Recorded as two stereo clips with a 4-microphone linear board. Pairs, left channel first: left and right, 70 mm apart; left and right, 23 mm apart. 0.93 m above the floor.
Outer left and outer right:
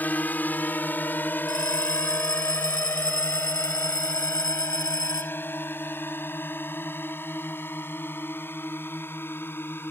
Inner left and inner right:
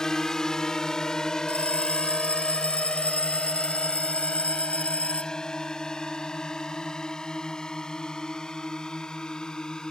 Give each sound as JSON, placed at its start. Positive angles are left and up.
{"t": 0.0, "sound": "a drone", "side_deg": 25}
{"t": 1.5, "sound": "a bell", "side_deg": 80}